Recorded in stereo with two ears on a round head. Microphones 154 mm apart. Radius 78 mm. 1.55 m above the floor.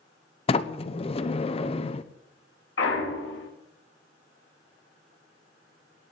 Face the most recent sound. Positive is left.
turn(degrees=75)  # may be behind; listen again after turning